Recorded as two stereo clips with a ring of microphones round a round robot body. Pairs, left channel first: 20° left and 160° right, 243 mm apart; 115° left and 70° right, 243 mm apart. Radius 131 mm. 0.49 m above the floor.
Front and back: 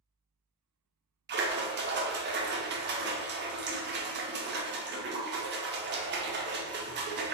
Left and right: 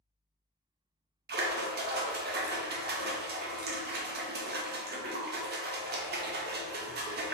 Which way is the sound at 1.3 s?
115° right.